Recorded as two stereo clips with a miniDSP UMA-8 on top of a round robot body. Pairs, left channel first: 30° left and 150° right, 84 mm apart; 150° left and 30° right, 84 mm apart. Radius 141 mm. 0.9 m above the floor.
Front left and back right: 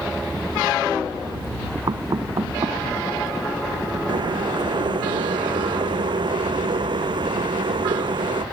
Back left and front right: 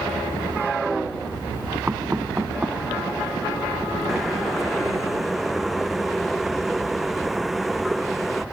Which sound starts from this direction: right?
Knocking, at 1.9 s.